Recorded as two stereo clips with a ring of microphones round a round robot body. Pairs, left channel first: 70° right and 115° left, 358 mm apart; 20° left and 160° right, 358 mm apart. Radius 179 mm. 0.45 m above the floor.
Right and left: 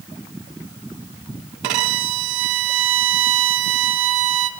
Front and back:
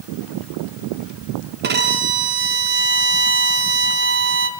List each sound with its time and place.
1.6 s a violin: 140° left, 3 m